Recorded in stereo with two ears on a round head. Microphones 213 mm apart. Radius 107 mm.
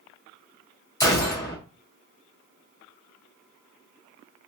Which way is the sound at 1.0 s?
15° left (ahead or behind).